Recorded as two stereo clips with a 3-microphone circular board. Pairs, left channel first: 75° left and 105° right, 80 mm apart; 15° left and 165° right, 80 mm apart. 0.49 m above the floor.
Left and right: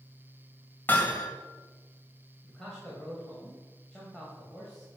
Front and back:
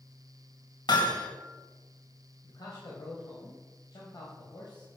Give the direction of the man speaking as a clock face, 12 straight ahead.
12 o'clock.